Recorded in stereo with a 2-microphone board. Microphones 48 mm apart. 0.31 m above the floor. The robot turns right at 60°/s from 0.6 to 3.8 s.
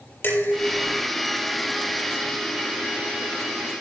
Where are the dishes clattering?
50° left (ahead or behind), 5.5 m; by 1.0 s 25° left (ahead or behind), 5.5 m.